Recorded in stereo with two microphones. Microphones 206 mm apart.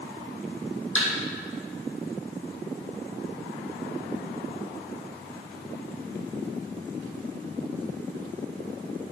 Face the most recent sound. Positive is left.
turn(degrees=35)  # may be behind; listen again after turning